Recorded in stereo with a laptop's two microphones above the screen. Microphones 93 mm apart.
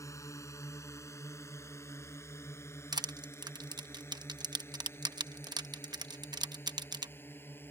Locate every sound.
0.0 s a drone: 35° left (ahead or behind); by 7.7 s 25° left (ahead or behind)
2.9 s crushing: 50° right (ahead or behind)